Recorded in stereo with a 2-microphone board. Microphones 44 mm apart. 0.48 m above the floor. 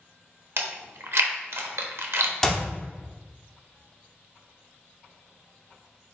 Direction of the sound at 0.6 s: 70° right (ahead or behind).